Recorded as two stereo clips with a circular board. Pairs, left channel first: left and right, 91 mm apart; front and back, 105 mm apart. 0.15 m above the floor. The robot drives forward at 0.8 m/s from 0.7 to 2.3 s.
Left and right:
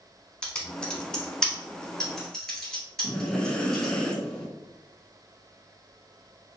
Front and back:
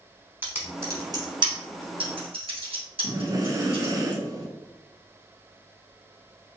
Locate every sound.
0.4 s typing on a keyboard: 155° left, 0.9 m; by 3.9 s 175° left, 1.8 m
3.0 s breathing: 165° left, 0.7 m